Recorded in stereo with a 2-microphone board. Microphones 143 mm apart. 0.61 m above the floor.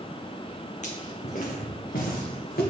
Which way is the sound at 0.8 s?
50° left (ahead or behind).